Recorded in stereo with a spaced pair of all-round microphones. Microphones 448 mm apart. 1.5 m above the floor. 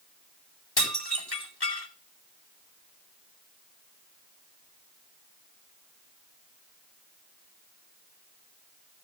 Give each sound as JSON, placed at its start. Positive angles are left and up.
{"t": 0.8, "sound": "dishes clattering", "side_deg": 55, "distance_m": 4.5}